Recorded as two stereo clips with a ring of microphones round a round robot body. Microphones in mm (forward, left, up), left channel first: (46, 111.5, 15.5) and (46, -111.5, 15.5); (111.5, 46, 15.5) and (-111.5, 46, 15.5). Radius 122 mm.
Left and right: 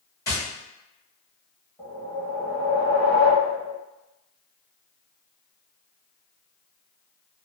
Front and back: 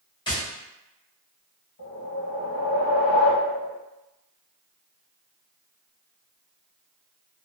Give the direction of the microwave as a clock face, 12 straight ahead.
I don't hear a microwave.